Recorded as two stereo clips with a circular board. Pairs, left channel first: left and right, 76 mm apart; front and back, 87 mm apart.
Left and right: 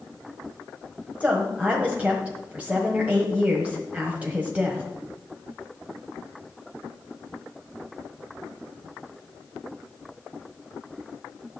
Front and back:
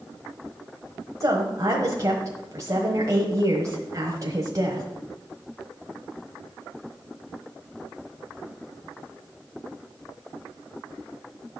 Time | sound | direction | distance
1.2 | a woman speaking | 155° right | 1.2 m